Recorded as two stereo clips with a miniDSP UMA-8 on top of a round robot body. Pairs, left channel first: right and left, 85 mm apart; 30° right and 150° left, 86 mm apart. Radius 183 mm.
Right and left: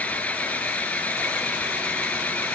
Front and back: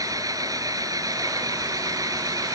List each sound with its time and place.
0.0 s an engine running: 165° right